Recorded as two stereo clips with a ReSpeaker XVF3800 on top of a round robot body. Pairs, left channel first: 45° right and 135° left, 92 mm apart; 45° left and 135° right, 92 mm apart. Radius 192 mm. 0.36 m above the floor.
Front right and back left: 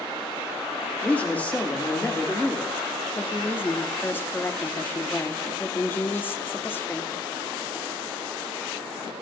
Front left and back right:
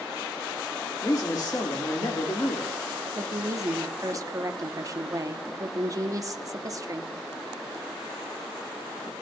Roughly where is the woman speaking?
Right.